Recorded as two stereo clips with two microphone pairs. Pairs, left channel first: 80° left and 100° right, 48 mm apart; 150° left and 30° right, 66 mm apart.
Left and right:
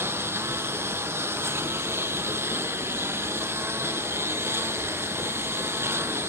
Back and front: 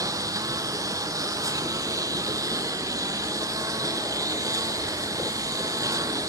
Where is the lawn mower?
65° right.